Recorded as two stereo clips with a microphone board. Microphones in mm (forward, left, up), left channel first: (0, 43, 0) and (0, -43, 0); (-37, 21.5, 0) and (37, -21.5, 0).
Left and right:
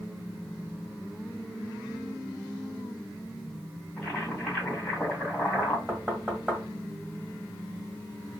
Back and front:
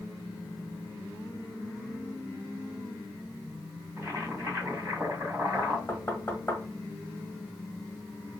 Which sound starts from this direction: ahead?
Boiling, at 4.0 s.